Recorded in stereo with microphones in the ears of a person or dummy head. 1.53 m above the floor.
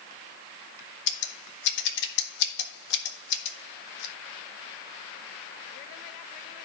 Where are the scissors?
60° left (ahead or behind), 1.6 m.